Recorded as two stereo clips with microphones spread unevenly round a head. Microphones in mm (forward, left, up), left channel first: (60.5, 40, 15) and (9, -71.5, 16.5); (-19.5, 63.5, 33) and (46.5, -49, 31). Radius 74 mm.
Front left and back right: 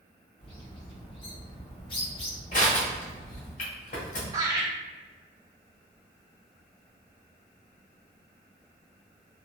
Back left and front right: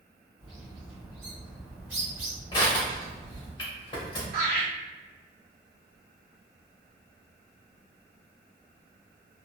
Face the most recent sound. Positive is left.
turn(degrees=-55)